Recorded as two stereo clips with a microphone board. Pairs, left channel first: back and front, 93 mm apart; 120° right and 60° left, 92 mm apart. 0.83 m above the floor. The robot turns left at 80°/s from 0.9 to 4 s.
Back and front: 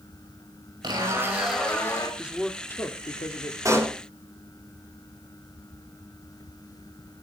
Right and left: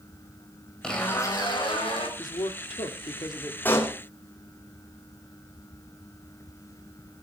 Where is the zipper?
40° right, 4.5 m; by 2.1 s 135° right, 4.5 m.